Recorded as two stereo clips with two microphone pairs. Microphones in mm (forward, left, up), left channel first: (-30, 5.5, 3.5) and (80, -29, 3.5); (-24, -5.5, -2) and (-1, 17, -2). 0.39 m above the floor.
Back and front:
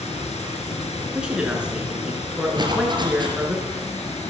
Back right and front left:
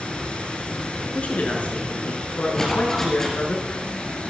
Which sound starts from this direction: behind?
Running water, at 0.0 s.